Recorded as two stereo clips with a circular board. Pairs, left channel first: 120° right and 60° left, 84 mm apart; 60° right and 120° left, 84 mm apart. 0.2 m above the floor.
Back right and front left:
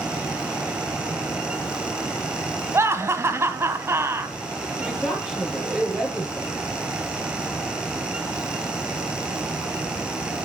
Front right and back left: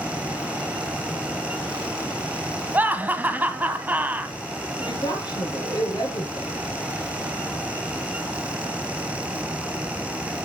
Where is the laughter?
70° left, 1.2 m.